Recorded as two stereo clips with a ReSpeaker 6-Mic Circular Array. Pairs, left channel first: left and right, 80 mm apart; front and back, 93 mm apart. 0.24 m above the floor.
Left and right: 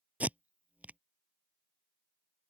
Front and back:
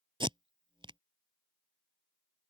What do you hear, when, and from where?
0.2 s tape being pulled: 160° right